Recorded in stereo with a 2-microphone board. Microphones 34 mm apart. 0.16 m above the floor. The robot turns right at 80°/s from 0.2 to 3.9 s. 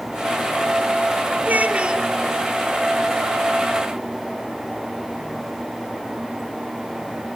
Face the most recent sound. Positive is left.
turn(degrees=130)